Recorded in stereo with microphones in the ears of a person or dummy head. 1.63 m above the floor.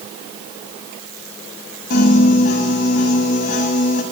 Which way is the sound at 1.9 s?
45° left (ahead or behind).